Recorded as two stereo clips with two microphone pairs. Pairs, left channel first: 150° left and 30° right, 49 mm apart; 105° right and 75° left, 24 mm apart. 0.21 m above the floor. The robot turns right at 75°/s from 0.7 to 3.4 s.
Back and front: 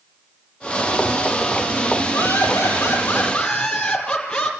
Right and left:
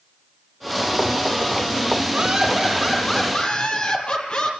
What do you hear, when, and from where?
2.1 s laughter: 125° left, 6 m; by 4.5 s 140° right, 6 m